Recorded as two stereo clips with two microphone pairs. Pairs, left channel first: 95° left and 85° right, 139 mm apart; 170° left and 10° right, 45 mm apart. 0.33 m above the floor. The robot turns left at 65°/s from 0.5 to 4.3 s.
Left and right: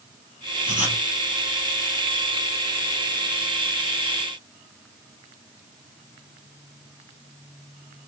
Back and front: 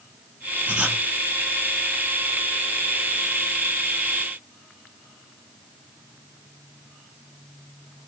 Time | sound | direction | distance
0.7 | writing | 65° right | 3 m